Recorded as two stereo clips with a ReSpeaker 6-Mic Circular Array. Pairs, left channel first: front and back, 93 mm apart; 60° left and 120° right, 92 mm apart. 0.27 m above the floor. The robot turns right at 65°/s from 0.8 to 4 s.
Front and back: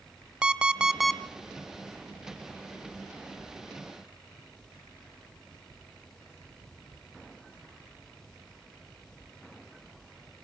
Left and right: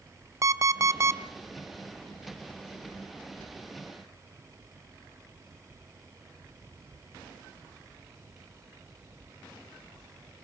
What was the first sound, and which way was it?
An alarm clock, 110° right.